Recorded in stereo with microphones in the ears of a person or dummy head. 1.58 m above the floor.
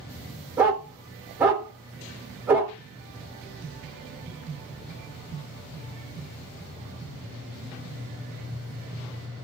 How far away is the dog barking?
About 1.6 m.